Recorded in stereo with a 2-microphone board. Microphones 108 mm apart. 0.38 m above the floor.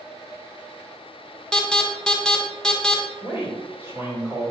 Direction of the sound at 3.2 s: 20° right (ahead or behind).